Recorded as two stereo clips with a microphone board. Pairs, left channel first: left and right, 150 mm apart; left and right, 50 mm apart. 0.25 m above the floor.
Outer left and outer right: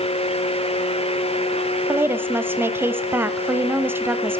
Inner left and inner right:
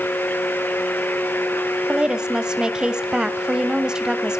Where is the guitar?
I don't hear a guitar.